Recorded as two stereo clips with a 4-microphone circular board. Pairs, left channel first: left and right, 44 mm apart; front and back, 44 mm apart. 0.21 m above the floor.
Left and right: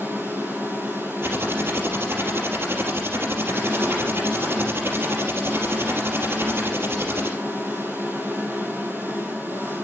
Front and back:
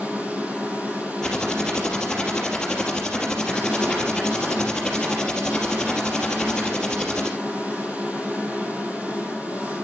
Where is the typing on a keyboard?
75° right, 3.5 m.